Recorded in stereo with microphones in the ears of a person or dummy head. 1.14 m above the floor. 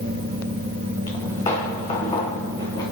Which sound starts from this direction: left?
Footsteps, at 1.1 s.